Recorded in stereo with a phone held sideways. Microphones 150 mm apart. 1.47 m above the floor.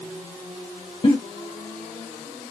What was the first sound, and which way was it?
A giggle, 40° left (ahead or behind).